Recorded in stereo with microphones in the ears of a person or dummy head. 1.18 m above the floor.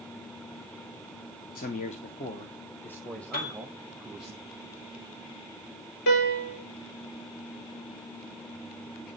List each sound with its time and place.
1.6 s a man speaking: 45° left (ahead or behind), 0.8 m; by 4.3 s 5° right (ahead or behind), 1.8 m
3.3 s a piano: 50° left (ahead or behind), 5 m
6.1 s a piano: 50° left (ahead or behind), 3.5 m